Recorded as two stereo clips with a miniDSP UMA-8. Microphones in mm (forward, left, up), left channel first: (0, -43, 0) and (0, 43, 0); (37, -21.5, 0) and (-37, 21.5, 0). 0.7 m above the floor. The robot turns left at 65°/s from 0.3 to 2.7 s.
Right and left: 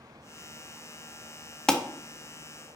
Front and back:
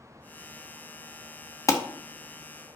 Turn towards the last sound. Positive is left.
turn(degrees=-80)